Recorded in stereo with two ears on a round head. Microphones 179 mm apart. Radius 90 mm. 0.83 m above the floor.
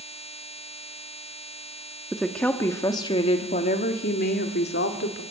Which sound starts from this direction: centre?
A woman speaking, at 2.1 s.